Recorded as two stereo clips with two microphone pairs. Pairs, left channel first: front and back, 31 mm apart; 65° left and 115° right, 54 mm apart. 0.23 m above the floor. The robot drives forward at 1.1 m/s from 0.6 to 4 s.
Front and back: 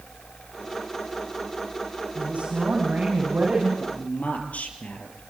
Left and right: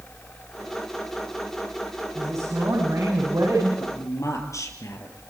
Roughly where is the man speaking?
Ahead left.